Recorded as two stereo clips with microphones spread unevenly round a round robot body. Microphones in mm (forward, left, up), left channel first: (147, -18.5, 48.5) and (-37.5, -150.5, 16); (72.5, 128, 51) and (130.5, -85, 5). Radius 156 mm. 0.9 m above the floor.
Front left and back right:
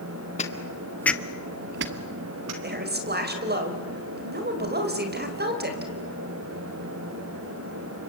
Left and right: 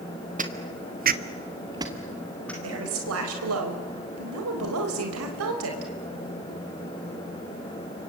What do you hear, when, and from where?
0.4 s footsteps: 15° right, 1.8 m; by 2.5 s 175° right, 1.8 m
2.6 s a woman speaking: 100° right, 4 m